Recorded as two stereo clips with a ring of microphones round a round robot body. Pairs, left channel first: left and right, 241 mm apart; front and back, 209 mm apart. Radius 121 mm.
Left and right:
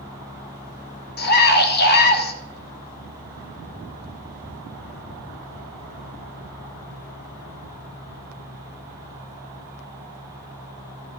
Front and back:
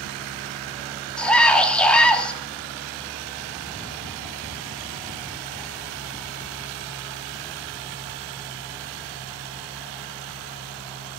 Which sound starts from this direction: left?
A scream, at 1.2 s.